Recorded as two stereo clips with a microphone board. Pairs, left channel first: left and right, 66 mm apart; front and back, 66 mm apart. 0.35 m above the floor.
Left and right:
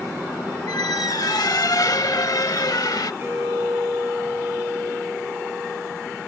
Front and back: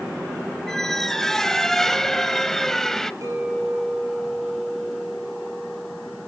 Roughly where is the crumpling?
I don't hear crumpling.